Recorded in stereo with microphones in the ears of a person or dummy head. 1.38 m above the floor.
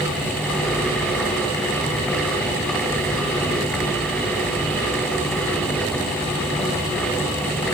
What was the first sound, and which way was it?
Only background noise.